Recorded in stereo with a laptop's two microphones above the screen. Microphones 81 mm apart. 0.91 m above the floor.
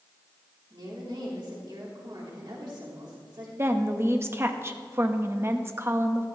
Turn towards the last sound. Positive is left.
turn(degrees=-30)  # may be behind; listen again after turning